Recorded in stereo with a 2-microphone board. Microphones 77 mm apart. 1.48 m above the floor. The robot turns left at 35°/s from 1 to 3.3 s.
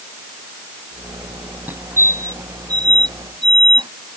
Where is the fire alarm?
25° right (ahead or behind); by 3.9 s 80° right.